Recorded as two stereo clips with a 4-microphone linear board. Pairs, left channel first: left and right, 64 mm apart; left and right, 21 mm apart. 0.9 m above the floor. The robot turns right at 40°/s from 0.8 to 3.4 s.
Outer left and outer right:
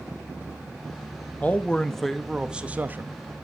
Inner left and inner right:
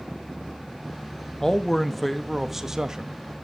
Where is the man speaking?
150° left, 0.9 m; by 3.1 s 140° right, 0.9 m.